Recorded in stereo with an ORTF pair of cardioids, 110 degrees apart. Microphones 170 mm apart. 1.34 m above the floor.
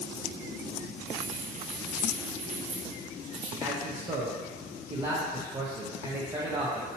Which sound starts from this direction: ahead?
A man speaking, at 3.6 s.